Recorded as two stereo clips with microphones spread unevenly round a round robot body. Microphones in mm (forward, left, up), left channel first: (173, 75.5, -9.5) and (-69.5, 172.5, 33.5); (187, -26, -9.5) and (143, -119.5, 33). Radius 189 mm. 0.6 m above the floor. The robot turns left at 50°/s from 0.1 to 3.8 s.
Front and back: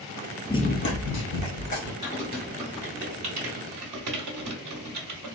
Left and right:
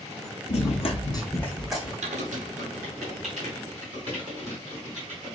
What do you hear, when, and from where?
0.5 s running footsteps: 65° left, 0.7 m; by 1.9 s 45° right, 2.5 m
2.0 s typing on a keyboard: 95° right, 0.8 m; by 5.4 s 175° left, 0.8 m